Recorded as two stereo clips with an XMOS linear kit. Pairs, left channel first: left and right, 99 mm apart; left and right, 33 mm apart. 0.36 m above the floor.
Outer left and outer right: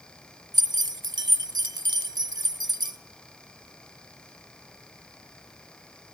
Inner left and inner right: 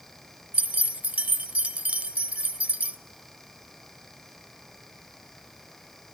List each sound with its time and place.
0.5 s keys jangling: 45° right (ahead or behind), 1.1 m